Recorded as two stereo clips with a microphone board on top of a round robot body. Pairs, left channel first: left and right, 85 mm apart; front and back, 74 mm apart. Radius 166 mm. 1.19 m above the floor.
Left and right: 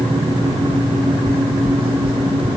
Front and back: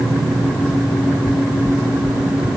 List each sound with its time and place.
1.3 s footsteps: 110° right; by 2.5 s 105° right